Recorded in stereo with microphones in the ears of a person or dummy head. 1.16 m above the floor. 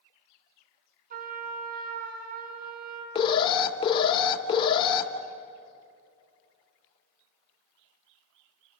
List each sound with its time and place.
1.1 s a trumpet: 50° right (ahead or behind), 3.5 m
3.1 s an alarm: 30° left (ahead or behind), 2.0 m